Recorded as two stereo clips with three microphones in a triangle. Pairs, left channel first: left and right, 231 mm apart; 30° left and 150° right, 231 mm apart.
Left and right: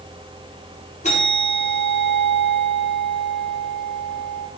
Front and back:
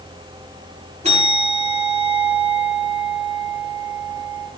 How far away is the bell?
About 7 m.